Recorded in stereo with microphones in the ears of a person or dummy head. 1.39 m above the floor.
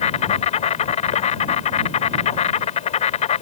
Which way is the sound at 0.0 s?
35° left (ahead or behind).